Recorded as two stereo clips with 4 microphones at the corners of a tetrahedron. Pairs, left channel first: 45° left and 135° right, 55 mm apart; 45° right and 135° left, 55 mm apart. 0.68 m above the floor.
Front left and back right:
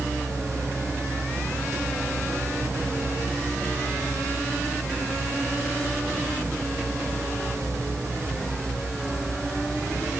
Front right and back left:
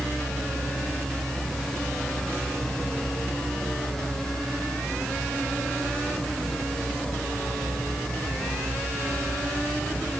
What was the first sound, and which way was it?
Only background noise.